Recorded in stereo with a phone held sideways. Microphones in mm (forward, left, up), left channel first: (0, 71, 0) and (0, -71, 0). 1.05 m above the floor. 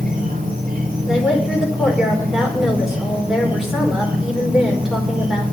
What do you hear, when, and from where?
0.0 s an insect: 75° right (ahead or behind), 3.5 m
1.1 s a woman speaking: 5° right (ahead or behind), 4.5 m